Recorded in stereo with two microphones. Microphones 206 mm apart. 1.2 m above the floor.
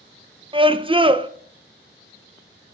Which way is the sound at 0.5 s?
25° right (ahead or behind).